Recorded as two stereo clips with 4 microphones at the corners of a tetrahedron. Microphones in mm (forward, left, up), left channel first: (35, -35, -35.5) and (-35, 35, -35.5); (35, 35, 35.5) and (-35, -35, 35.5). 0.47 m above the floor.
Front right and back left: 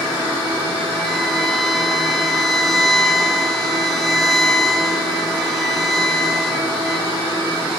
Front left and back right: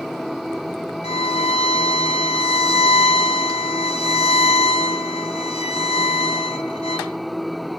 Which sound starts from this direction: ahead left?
A violin, at 1.0 s.